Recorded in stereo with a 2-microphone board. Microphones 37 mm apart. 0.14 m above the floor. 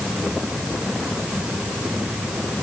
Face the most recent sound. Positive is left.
No sound to turn to.